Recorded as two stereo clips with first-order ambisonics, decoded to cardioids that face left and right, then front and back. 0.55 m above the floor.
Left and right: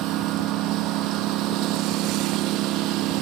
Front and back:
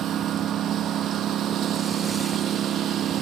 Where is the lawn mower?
125° right.